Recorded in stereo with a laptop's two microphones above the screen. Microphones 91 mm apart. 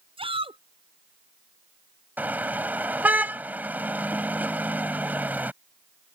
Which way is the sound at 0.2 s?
80° right.